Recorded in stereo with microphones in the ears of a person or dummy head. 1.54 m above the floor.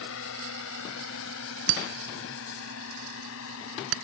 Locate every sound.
0.0 s a drone: 65° left (ahead or behind); by 4.0 s 75° left (ahead or behind)
1.7 s breaking glass: 75° right (ahead or behind)